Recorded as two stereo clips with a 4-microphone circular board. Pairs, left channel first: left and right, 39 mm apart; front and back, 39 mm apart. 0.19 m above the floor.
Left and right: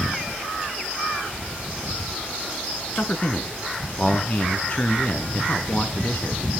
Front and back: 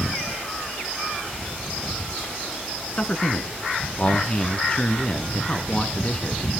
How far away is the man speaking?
About 2.5 m.